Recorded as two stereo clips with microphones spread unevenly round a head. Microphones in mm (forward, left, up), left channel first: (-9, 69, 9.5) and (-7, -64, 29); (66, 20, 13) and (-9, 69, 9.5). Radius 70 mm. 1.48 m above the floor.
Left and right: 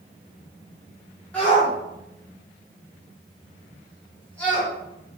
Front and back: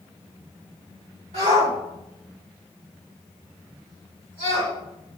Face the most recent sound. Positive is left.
turn(degrees=170)